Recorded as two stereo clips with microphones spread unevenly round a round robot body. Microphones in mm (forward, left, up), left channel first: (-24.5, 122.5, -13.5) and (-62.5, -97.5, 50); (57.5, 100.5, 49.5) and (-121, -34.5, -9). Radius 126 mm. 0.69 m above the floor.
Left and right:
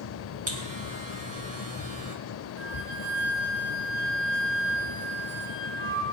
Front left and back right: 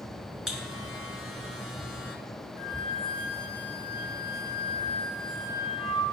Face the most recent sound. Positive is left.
turn(degrees=-40)